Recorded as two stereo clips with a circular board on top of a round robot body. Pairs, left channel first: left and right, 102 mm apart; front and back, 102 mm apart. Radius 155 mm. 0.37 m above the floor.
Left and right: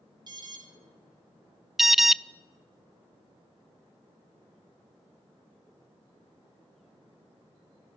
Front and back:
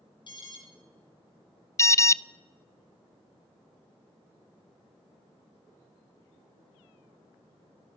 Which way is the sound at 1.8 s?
5° right.